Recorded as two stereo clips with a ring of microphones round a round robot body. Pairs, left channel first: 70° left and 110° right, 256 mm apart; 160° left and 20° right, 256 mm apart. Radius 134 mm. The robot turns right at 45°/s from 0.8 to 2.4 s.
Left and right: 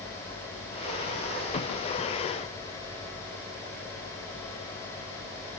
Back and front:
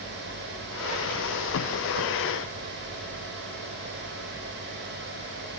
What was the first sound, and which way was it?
Only background noise.